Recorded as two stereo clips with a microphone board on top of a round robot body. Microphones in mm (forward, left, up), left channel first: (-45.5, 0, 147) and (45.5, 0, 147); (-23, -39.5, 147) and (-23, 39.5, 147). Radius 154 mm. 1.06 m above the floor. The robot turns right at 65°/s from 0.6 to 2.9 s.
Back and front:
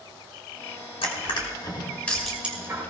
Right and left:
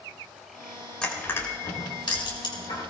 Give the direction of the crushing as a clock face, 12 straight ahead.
6 o'clock.